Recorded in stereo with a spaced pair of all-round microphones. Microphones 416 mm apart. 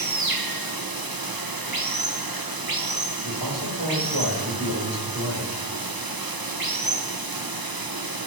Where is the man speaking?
85° right, 4.5 m.